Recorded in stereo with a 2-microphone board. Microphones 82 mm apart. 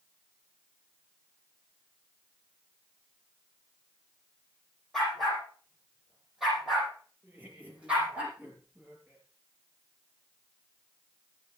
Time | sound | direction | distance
4.9 | a dog barking | 5° left (ahead or behind) | 7.5 m
7.2 | laughter | 15° right (ahead or behind) | 8.5 m